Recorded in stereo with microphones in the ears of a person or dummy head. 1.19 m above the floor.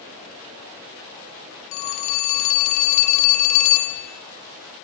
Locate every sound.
1.7 s a phone ringing: 45° left (ahead or behind), 2 m